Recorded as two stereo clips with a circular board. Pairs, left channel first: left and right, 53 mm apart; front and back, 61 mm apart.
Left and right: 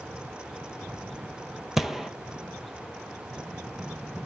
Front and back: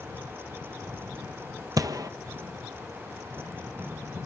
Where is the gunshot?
170° right, 0.8 m.